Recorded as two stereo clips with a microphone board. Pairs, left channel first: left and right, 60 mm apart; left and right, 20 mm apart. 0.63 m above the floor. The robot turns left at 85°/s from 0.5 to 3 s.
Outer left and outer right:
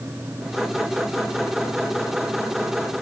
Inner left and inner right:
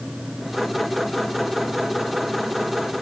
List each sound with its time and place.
Only background noise.